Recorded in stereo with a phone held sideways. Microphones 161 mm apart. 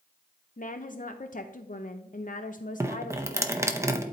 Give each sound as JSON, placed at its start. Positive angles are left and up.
{"t": 0.6, "sound": "a woman speaking", "side_deg": 55, "distance_m": 0.5}
{"t": 2.8, "sound": "dripping", "side_deg": -15, "distance_m": 0.7}